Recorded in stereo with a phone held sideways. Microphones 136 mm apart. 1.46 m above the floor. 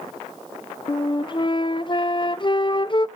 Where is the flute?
35° left (ahead or behind), 0.5 m.